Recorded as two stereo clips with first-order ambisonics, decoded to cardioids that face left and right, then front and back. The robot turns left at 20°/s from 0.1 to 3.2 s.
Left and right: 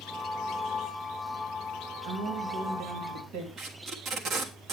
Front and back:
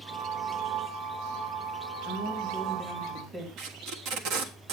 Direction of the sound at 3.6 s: 150° right.